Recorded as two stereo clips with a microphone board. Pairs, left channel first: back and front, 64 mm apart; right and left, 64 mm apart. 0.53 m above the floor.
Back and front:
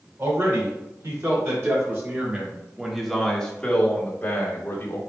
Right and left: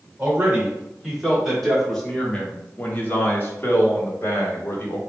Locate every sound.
0.2 s a man speaking: 15° left, 1.6 m; by 5.0 s 135° right, 1.5 m